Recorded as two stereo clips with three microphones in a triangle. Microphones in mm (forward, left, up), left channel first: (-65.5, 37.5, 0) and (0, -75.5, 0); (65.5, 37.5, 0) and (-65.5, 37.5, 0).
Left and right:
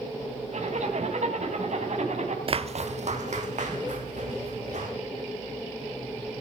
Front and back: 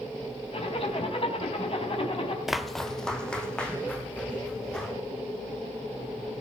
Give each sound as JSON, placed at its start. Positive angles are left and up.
{"t": 0.5, "sound": "a zipper", "azimuth_deg": -40, "distance_m": 3.5}
{"t": 2.5, "sound": "footsteps", "azimuth_deg": -95, "distance_m": 0.6}